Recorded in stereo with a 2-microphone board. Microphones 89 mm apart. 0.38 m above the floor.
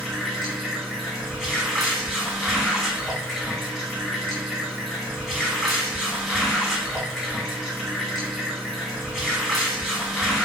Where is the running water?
5° left (ahead or behind), 1.5 m.